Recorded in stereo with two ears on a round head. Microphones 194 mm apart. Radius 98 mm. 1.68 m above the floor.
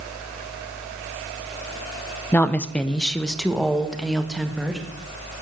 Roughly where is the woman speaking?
Centre.